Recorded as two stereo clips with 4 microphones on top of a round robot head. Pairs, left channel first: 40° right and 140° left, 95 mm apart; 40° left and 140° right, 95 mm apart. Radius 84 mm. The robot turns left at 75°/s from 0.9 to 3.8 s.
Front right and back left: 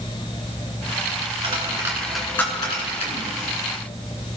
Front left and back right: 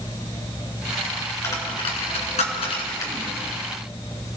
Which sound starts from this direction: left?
A dropped coin, at 1.4 s.